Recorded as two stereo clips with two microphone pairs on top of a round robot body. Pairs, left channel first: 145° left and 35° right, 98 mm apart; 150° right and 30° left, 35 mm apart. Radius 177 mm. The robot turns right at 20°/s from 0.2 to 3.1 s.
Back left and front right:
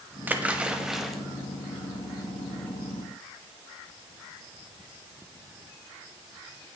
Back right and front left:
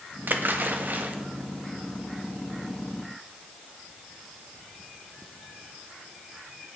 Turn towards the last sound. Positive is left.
turn(degrees=95)